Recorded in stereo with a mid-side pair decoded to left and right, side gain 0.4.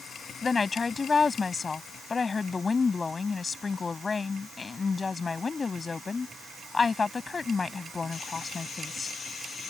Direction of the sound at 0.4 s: 35° left.